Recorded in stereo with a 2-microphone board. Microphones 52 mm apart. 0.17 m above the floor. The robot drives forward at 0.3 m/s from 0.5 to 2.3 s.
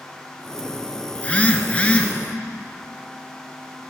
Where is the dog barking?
I don't hear a dog barking.